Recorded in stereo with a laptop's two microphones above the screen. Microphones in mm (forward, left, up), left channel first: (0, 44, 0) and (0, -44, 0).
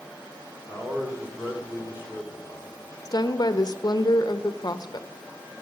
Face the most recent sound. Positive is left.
turn(degrees=50)  # may be behind; listen again after turning